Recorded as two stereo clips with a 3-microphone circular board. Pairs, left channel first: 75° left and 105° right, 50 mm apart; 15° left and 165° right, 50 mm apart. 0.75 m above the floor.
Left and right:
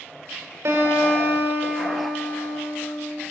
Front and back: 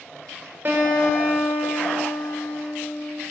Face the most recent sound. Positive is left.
turn(degrees=-125)